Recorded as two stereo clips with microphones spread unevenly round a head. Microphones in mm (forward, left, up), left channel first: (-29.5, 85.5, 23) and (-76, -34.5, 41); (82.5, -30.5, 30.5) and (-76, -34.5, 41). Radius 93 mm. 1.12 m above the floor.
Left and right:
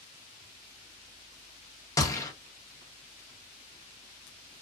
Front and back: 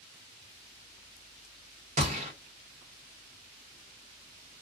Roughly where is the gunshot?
Behind left.